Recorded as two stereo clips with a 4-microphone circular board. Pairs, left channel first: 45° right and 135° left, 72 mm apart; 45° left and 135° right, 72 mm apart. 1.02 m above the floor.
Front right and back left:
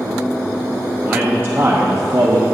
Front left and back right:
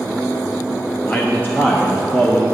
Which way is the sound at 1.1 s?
80° left.